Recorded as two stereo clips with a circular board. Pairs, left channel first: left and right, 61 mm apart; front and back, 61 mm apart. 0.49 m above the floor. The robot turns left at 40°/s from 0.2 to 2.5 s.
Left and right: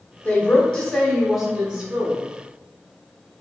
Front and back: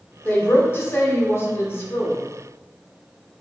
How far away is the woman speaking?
About 0.9 m.